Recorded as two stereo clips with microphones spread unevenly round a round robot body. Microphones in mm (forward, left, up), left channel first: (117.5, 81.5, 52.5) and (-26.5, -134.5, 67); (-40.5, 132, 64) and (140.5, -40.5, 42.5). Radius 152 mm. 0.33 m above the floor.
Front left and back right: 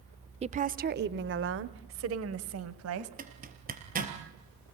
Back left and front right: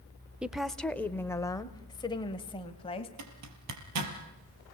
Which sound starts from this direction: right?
A woman speaking, at 0.4 s.